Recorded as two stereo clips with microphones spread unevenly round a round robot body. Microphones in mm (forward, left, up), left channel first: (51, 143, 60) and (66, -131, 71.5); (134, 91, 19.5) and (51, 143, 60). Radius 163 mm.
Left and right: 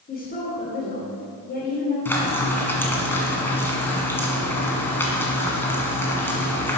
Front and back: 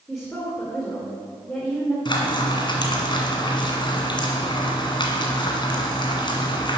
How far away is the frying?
About 2 m.